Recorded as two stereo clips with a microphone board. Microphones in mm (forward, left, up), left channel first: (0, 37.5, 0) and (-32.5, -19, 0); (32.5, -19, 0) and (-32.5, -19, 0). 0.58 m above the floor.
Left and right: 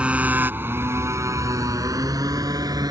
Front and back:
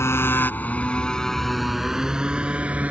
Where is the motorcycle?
50° right; by 2.9 s 115° right.